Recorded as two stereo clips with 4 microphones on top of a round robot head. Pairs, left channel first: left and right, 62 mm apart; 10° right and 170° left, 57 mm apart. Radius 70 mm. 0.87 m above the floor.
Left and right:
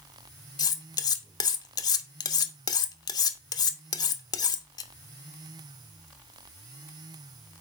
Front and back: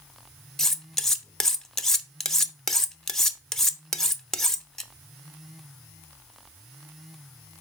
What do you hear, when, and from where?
0.6 s cutlery clinking: 75° left, 0.9 m